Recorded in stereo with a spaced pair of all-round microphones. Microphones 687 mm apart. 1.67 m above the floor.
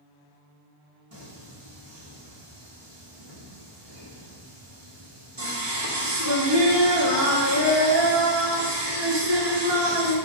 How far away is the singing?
About 1.4 m.